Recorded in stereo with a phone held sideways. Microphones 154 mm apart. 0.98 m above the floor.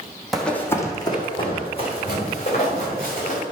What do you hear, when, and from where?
0.3 s running footsteps: centre (ahead or behind), 1.6 m; by 3.4 s 50° left (ahead or behind), 5.5 m